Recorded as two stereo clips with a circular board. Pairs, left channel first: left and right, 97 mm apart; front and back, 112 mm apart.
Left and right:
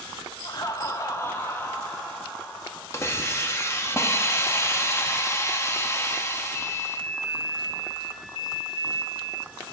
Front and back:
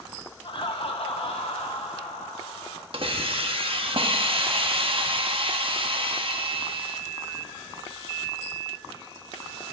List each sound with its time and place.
0.4 s laughter: 45° left, 1.3 m; by 2.8 s 15° left, 2.5 m
2.9 s a hiss: 150° left, 1.0 m